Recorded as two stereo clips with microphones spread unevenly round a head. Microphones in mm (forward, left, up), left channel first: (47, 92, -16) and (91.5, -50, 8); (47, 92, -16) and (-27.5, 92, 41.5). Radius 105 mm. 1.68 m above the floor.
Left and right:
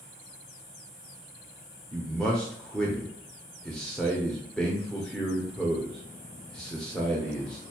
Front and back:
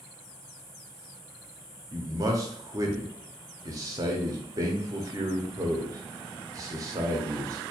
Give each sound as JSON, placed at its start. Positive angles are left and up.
{"t": 1.9, "sound": "a man speaking", "azimuth_deg": -160, "distance_m": 0.7}